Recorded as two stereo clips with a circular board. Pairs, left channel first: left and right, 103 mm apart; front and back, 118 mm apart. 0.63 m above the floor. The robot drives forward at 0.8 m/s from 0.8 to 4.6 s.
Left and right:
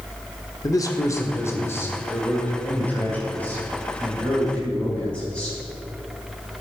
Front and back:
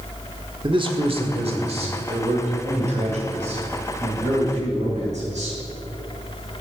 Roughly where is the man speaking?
Behind left.